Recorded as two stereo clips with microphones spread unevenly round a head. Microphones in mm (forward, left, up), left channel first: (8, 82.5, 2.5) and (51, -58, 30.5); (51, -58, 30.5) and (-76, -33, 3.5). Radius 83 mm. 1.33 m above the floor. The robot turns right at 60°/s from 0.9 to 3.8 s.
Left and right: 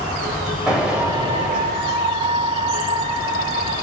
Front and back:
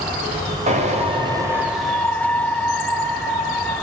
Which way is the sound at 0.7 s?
155° right.